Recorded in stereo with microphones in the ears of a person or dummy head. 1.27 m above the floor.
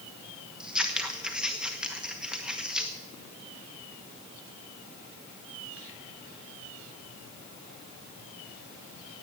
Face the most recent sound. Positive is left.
turn(degrees=-5)  # may be behind; listen again after turning